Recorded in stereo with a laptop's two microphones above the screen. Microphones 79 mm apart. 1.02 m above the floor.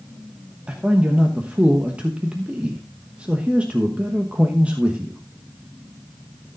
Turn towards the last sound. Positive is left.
turn(degrees=-15)  # may be behind; listen again after turning